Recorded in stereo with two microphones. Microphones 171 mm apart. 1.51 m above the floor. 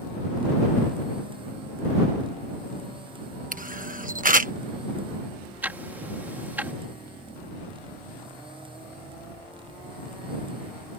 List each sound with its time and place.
3.5 s a camera shutter: 55° right (ahead or behind)
5.6 s ticking: 10° right (ahead or behind)